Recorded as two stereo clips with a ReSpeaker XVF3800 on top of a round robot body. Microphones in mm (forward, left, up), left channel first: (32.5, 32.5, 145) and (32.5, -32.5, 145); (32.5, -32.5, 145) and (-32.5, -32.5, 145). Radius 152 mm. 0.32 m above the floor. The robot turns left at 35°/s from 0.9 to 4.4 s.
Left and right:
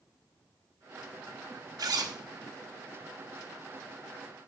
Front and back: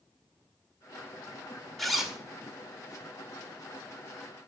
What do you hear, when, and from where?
1.8 s a zipper: 85° right, 1.5 m; by 2.2 s 100° right, 1.5 m